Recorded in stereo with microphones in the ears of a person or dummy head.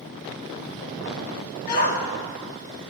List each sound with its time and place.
1.7 s a shout: 50° left (ahead or behind), 2 m